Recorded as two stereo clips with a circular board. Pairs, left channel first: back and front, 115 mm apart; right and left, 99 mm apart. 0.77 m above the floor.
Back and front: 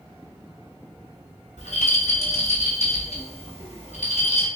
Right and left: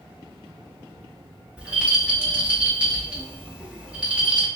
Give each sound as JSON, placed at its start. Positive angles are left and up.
{"t": 1.6, "sound": "a rattle", "azimuth_deg": 170, "distance_m": 1.4}